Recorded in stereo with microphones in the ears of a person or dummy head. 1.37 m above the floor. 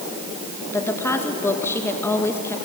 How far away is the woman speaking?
About 2 m.